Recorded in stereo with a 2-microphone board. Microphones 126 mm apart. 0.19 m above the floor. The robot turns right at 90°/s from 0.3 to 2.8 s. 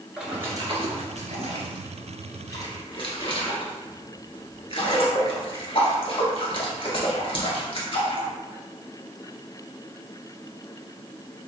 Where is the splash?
5° right (ahead or behind), 1.1 m; by 8.3 s 50° left (ahead or behind), 1.1 m.